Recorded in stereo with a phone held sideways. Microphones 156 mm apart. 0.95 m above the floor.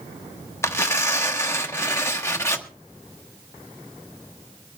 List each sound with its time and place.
0.6 s tearing paper: 20° left (ahead or behind), 1.2 m